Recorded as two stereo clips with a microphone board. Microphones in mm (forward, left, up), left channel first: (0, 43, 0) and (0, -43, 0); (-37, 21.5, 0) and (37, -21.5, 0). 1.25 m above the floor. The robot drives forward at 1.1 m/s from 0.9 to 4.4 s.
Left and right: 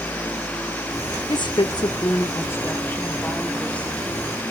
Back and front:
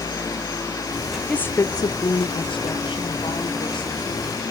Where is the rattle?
No rattle in this recording.